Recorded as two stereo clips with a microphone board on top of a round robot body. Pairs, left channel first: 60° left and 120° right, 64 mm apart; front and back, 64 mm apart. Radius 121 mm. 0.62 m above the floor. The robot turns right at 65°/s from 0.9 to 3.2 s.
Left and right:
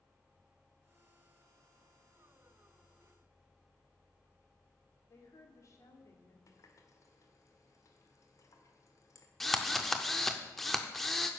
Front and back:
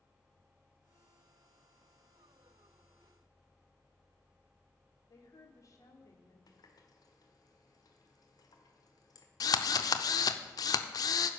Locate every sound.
5.1 s a woman speaking: 25° left, 2 m
6.5 s a running tap: 20° left, 1.4 m
9.4 s a drill: 30° right, 0.5 m